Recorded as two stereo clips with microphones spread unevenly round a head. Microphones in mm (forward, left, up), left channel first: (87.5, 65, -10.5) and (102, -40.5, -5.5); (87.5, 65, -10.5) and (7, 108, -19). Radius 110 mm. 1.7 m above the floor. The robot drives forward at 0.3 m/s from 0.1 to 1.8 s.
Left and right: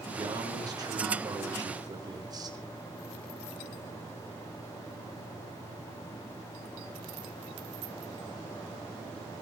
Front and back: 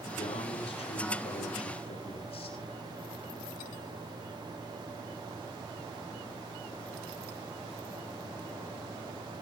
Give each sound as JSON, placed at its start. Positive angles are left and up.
{"t": 0.2, "sound": "a man speaking", "azimuth_deg": -30, "distance_m": 7.0}